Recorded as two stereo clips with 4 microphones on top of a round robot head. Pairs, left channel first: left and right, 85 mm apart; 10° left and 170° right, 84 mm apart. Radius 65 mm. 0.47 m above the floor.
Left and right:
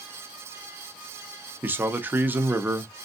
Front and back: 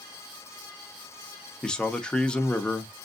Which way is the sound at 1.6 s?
55° right.